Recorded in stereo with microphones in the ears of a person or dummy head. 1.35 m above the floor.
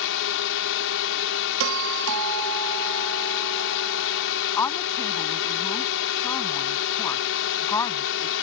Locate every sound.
0.0 s a drone: 70° left (ahead or behind)
1.6 s a doorbell: 70° right (ahead or behind)
4.6 s a woman speaking: 20° left (ahead or behind)